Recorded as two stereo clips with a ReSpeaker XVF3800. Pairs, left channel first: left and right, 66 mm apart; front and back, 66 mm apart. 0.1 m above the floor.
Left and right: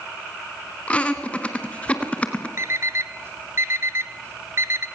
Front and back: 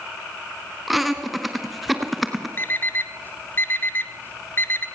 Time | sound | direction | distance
0.9 | laughter | 95° left | 1.6 m
2.6 | an alarm clock | 55° right | 0.9 m